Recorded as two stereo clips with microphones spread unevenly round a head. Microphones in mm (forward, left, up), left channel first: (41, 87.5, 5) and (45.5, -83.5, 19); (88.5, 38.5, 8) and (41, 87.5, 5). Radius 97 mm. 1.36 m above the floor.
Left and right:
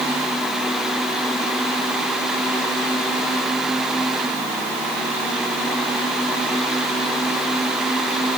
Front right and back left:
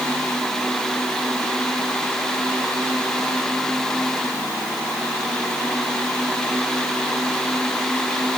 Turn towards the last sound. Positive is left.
No sound to turn to.